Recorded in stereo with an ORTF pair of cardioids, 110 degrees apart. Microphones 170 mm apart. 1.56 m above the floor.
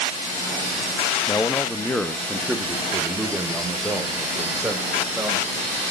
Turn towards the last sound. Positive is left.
turn(degrees=-10)